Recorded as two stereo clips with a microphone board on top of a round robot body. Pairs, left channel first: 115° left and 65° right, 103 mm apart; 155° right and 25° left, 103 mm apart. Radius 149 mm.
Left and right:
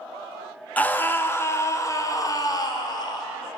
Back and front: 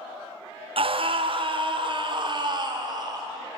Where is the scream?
40° left, 2 m; by 3.3 s 70° left, 3 m.